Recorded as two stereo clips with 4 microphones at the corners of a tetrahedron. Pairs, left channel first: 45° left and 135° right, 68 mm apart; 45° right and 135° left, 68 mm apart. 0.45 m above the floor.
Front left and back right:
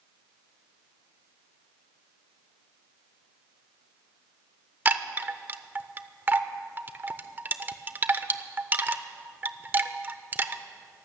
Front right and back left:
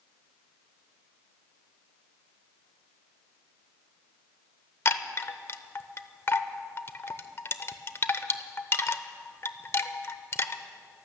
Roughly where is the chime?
Right.